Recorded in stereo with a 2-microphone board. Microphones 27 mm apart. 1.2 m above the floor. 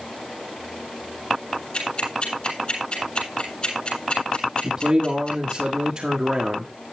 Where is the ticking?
40° left (ahead or behind), 7.5 m.